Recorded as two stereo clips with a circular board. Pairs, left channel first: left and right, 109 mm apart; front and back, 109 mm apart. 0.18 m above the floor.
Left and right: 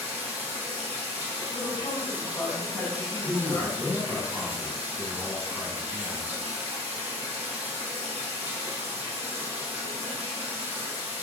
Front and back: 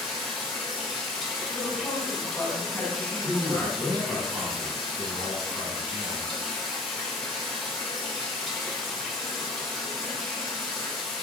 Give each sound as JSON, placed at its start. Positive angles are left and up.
{"t": 0.0, "sound": "running water", "azimuth_deg": -90, "distance_m": 2.0}
{"t": 1.5, "sound": "a woman speaking", "azimuth_deg": 70, "distance_m": 1.8}
{"t": 3.2, "sound": "a man speaking", "azimuth_deg": -165, "distance_m": 1.3}